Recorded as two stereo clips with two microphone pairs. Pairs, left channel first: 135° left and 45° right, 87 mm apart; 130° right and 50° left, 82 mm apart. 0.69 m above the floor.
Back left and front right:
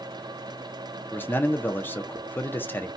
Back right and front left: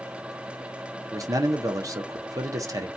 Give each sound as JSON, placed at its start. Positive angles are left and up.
{"t": 1.1, "sound": "a man speaking", "azimuth_deg": 75, "distance_m": 0.7}